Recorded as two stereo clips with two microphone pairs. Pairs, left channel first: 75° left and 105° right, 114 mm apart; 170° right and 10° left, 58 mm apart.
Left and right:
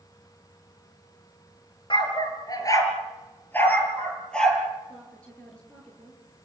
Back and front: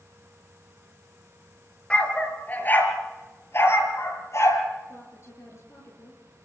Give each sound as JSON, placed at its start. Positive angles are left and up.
{"t": 1.9, "sound": "a dog barking", "azimuth_deg": 120, "distance_m": 3.5}
{"t": 4.9, "sound": "a woman speaking", "azimuth_deg": 155, "distance_m": 8.0}